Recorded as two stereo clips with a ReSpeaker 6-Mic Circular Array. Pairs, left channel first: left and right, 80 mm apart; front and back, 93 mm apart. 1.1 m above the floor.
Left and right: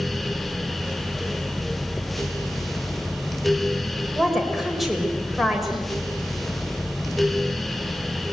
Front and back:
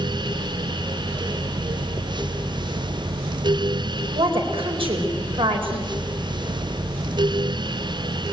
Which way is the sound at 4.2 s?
Straight behind.